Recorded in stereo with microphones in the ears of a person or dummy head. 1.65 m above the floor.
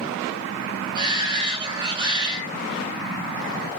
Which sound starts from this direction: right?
A shout, at 0.9 s.